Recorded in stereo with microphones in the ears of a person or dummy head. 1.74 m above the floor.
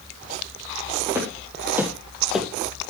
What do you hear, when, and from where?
1.1 s footsteps: 15° right (ahead or behind), 4.5 m; by 2.5 s centre (ahead or behind), 3 m